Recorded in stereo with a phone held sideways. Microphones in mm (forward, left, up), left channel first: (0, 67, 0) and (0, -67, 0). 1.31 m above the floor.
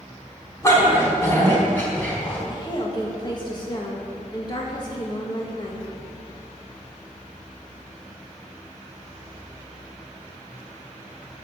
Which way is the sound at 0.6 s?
20° left (ahead or behind).